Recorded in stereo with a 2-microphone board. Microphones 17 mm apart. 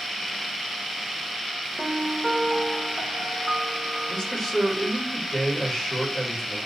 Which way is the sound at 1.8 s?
10° right (ahead or behind).